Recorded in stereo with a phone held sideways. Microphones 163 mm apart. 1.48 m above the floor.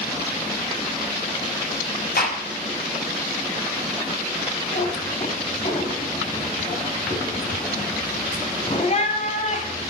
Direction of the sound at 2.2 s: 65° left (ahead or behind).